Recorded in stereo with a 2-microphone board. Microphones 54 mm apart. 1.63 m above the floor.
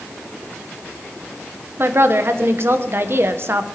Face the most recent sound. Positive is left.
turn(degrees=-50)  # may be behind; listen again after turning